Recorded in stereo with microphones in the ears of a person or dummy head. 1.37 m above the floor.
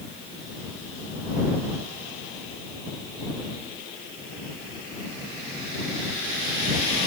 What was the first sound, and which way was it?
Only background noise.